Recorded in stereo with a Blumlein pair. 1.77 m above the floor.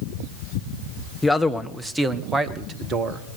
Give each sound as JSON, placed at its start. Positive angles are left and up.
{"t": 1.2, "sound": "a man speaking", "azimuth_deg": 5, "distance_m": 1.5}